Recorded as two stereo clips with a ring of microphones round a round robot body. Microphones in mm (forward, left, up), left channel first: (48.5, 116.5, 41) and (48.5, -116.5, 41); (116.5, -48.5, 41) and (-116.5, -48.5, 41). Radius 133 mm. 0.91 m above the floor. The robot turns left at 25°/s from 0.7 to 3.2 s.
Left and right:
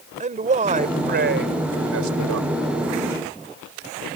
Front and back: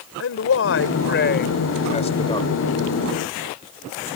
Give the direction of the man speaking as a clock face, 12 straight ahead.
1 o'clock.